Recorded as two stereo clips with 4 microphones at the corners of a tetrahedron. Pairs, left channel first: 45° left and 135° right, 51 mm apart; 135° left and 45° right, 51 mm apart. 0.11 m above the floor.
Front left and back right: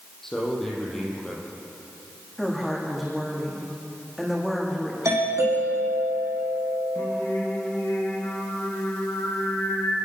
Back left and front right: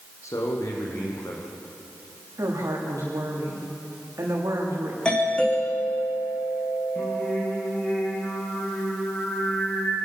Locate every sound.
0.2 s a man speaking: 130° left, 6 m
2.4 s a woman speaking: 45° right, 7.5 m
5.0 s a doorbell: 155° right, 7 m
7.0 s singing: 70° left, 7.5 m